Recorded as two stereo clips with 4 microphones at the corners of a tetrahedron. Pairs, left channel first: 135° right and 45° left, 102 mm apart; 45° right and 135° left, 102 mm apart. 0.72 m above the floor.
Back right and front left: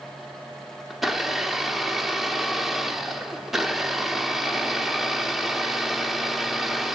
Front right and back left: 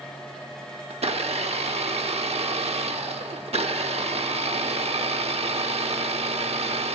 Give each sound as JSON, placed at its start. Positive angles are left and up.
{"t": 0.9, "sound": "a blender", "azimuth_deg": 135, "distance_m": 0.7}